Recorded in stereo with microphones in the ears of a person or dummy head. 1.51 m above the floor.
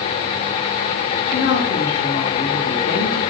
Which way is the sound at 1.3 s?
55° left (ahead or behind).